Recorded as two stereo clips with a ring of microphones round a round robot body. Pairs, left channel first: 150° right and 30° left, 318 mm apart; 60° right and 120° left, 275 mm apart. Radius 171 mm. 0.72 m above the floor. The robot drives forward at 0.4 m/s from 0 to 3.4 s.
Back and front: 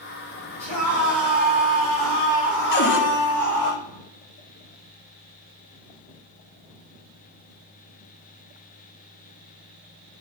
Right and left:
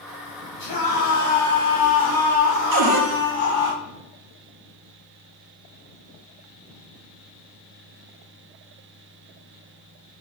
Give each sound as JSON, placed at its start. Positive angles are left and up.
{"t": 0.6, "sound": "a scream", "azimuth_deg": -50, "distance_m": 3.0}
{"t": 2.7, "sound": "a cupboard door", "azimuth_deg": 150, "distance_m": 0.8}